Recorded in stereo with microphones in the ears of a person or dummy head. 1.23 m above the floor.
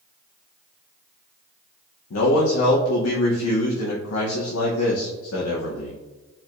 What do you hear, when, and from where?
2.1 s a man speaking: 85° left, 0.7 m